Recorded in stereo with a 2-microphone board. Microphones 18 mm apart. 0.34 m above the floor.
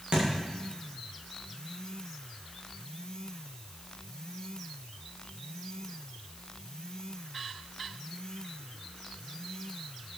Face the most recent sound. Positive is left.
turn(degrees=-55)  # may be behind; listen again after turning